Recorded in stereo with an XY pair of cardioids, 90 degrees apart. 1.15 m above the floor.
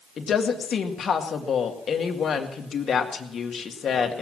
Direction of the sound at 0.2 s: 55° left.